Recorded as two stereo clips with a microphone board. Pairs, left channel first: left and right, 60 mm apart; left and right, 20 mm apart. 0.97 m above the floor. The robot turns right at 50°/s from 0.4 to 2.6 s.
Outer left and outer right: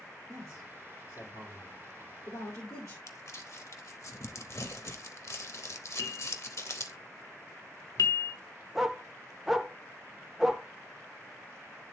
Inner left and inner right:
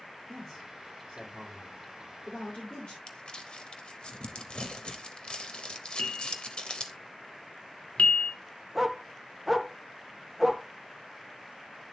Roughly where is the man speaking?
Centre.